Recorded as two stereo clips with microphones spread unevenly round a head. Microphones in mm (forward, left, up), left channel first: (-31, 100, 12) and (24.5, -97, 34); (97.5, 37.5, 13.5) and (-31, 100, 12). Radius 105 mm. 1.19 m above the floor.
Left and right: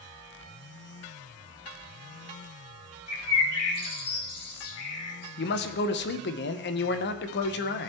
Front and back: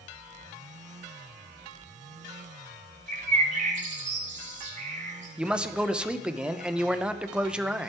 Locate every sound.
3.1 s a bird: 125° left, 1.7 m
5.4 s a man speaking: 70° left, 0.8 m